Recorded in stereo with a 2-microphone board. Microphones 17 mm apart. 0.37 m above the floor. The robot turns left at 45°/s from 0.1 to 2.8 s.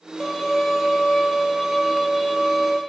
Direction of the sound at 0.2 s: 25° left (ahead or behind).